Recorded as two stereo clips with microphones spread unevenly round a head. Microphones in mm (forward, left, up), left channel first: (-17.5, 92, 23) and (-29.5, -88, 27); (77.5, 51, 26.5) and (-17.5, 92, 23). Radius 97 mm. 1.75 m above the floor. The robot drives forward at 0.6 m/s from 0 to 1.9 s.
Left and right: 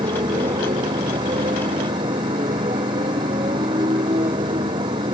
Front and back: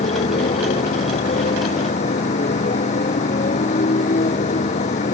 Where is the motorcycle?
25° right.